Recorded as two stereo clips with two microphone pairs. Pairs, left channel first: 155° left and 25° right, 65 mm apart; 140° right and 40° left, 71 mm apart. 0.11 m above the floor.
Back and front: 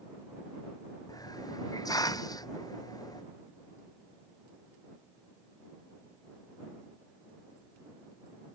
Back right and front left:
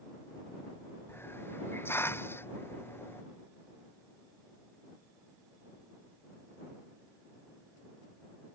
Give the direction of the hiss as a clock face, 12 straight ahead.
7 o'clock.